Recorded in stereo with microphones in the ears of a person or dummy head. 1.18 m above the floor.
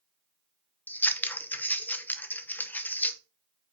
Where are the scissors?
10° left (ahead or behind), 0.7 m.